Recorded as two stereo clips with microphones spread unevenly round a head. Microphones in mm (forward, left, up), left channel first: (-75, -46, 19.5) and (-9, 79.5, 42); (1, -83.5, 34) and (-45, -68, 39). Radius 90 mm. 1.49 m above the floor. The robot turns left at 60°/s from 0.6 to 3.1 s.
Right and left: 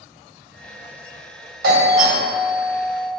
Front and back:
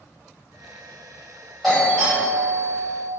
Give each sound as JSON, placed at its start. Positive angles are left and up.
{"t": 1.6, "sound": "a doorbell", "azimuth_deg": 75, "distance_m": 1.6}